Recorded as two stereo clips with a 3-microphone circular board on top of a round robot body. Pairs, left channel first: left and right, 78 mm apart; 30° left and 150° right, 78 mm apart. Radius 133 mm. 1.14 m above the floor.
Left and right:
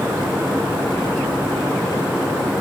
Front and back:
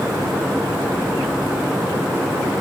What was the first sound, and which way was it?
Only background noise.